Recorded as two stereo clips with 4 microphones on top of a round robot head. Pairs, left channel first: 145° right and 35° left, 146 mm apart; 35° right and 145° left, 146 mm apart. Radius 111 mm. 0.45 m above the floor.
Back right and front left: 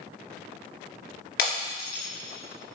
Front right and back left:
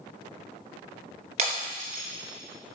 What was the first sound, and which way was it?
Breaking glass, 165° right.